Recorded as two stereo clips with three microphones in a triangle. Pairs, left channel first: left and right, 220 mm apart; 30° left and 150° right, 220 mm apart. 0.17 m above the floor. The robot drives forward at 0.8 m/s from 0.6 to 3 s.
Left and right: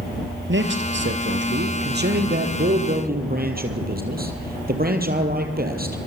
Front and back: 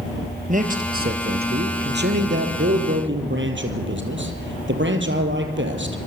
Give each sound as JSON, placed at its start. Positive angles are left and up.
{"t": 0.5, "sound": "a man speaking", "azimuth_deg": -105, "distance_m": 3.5}